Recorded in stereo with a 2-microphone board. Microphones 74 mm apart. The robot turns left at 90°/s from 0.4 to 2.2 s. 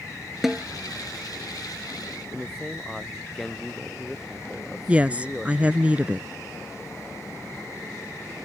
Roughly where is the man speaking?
Centre.